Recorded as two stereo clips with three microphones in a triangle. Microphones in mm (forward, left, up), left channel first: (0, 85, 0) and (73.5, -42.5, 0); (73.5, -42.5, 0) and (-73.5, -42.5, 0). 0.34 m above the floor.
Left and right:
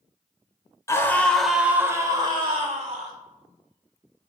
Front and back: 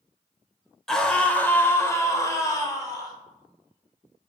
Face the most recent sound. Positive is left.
turn(degrees=-55)